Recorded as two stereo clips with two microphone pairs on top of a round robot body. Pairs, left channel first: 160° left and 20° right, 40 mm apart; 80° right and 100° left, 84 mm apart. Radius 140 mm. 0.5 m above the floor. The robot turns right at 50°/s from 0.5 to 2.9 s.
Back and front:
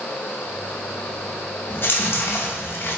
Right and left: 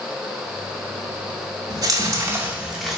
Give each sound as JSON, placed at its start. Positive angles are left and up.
{"t": 1.7, "sound": "chewing", "azimuth_deg": 125, "distance_m": 0.7}